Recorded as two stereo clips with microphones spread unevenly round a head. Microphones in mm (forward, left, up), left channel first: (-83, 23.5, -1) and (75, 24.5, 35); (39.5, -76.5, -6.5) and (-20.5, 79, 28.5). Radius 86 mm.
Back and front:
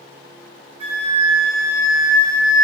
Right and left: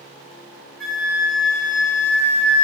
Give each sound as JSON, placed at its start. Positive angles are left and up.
{"t": 0.8, "sound": "a flute", "azimuth_deg": -20, "distance_m": 0.7}